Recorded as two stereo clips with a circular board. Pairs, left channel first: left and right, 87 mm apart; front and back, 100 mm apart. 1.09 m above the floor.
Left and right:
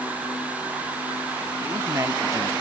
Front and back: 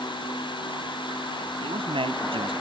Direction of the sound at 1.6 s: 150° right.